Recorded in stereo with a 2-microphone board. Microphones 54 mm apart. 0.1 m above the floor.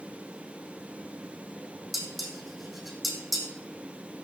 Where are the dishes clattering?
Centre (ahead or behind), 3 m.